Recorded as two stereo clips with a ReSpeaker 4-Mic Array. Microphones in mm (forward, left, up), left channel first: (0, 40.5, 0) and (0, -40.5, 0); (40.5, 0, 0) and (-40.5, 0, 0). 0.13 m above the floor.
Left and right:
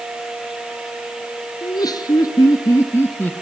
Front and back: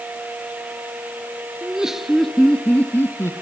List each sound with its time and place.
1.6 s laughter: 105° left, 1.7 m; by 3.3 s 35° left, 1.3 m